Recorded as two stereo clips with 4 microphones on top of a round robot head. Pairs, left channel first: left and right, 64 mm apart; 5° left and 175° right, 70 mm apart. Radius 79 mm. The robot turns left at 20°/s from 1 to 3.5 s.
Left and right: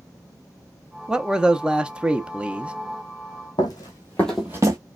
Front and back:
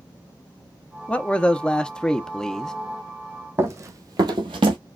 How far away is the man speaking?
About 0.7 m.